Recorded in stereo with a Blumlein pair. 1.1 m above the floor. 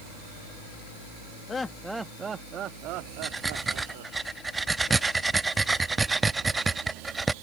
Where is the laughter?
20° left; by 4.2 s 55° right.